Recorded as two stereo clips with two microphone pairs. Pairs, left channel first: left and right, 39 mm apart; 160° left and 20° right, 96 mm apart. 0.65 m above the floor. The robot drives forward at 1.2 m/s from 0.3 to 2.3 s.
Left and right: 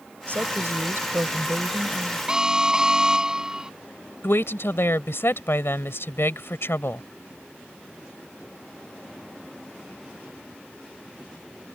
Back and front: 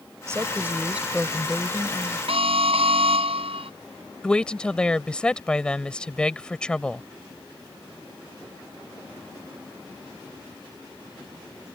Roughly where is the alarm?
Ahead.